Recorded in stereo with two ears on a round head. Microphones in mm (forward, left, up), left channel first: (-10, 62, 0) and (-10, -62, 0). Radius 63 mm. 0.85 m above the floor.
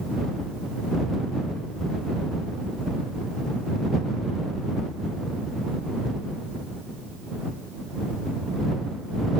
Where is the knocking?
No knocking in this recording.